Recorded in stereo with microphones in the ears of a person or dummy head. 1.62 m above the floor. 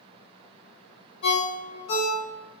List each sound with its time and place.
1.2 s a ringtone: 50° left (ahead or behind), 0.9 m